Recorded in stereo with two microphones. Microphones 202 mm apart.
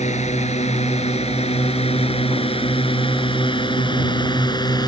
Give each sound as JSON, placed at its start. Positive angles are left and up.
{"t": 0.0, "sound": "a drone", "side_deg": 30}